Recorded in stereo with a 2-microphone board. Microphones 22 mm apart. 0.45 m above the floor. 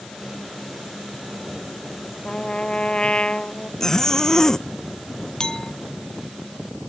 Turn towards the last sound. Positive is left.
turn(degrees=35)  # may be behind; listen again after turning